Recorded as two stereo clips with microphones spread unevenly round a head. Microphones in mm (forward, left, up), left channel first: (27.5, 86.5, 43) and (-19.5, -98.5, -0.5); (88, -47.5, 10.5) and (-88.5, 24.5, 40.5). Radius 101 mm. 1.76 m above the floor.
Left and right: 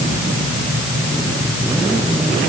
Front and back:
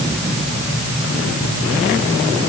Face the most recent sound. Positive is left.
No sound to turn to.